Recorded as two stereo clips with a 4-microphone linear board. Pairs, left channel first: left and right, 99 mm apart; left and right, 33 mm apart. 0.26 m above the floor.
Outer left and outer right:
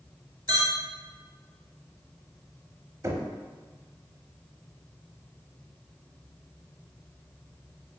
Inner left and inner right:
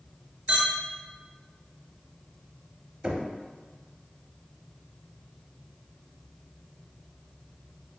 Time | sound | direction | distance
0.5 | a clink | 50° right (ahead or behind) | 1.1 m
3.0 | knocking | 30° right (ahead or behind) | 0.7 m